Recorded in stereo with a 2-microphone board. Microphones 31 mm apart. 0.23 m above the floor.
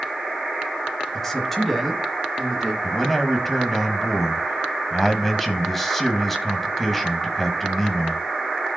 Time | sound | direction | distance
1.1 | a man speaking | 15° left (ahead or behind) | 1.1 m
2.8 | a man speaking | 5° left (ahead or behind) | 1.2 m